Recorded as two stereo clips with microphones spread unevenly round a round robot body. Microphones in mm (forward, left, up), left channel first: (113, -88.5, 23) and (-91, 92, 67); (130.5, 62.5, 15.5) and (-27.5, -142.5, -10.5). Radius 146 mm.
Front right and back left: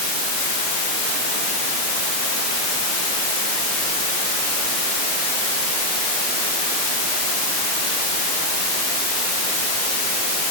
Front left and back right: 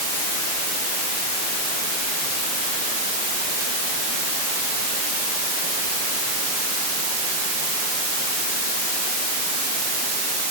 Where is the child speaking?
No child speaking in this recording.